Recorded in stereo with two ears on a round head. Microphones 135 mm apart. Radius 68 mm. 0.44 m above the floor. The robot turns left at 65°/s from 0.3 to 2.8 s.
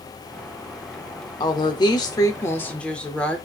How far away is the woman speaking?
About 0.9 m.